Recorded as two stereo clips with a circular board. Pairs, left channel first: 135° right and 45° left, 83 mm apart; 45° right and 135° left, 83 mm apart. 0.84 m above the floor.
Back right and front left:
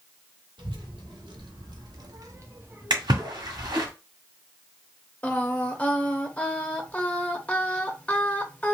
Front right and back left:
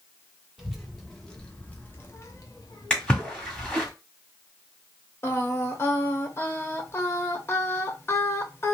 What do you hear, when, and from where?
0.6 s a child speaking: 50° left, 1.4 m; by 3.9 s 50° right, 1.1 m
2.9 s a splash: 35° left, 1.6 m
5.2 s singing: 75° right, 0.6 m